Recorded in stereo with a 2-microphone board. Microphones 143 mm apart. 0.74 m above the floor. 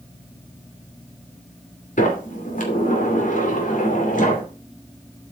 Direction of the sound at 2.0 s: 65° left (ahead or behind).